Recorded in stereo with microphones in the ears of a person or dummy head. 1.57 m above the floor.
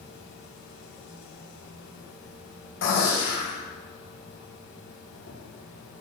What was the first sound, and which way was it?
An insect, 60° left (ahead or behind).